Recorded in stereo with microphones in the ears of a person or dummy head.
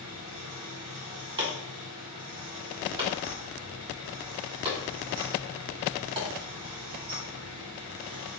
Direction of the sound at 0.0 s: 45° right (ahead or behind).